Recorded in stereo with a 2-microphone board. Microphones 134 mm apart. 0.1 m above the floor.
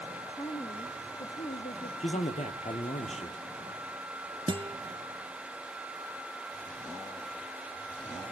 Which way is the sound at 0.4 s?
40° left (ahead or behind).